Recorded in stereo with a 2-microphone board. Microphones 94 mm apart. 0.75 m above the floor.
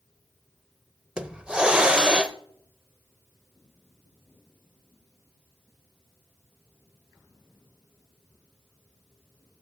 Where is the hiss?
10° right (ahead or behind), 0.6 m.